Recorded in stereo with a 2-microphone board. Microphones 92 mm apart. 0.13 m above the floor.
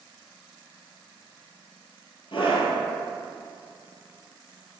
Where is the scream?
65° left (ahead or behind), 2.5 m.